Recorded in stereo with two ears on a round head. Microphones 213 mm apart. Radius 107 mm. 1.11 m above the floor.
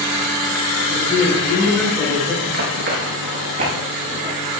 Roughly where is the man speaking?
Centre.